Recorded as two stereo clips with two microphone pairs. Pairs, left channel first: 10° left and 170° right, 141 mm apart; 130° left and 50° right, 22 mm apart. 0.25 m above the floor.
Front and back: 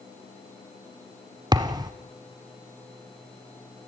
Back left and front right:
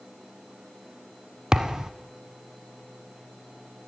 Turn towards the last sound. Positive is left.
turn(degrees=-115)